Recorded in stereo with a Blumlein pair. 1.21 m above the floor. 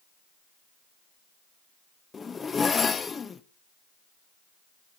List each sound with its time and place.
2.1 s a zipper: 15° left, 0.7 m